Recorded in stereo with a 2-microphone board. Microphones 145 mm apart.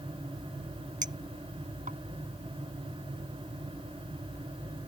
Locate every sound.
1.0 s a clink: 60° right (ahead or behind)